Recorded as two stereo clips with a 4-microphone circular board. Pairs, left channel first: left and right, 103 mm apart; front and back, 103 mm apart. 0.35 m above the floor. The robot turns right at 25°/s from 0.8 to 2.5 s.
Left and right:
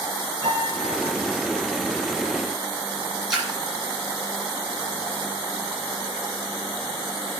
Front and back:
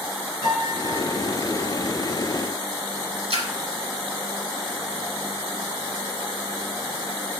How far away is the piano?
About 5 m.